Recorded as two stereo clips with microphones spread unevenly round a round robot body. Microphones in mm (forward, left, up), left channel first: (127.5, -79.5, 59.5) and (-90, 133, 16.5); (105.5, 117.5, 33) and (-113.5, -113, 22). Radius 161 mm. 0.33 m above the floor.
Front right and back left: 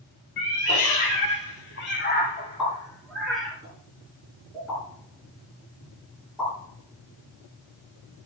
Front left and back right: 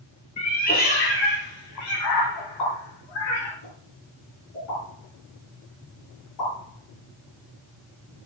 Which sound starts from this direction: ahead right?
A cat meowing, at 0.4 s.